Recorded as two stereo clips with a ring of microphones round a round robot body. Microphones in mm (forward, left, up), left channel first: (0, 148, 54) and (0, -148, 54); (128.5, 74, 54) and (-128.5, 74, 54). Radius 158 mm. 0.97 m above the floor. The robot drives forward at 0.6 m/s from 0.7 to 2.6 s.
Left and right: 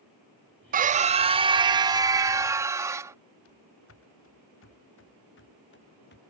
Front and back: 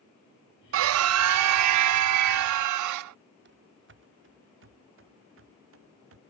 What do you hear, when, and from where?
0.7 s a scream: 150° right; by 3.1 s 170° right
3.5 s running footsteps: 135° left; by 6.2 s 145° left